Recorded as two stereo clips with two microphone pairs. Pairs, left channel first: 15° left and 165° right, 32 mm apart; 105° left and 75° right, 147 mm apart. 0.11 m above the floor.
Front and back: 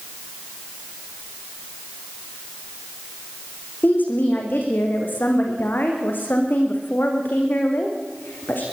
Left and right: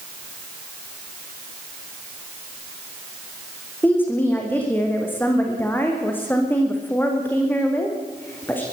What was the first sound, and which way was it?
A woman speaking, 25° left.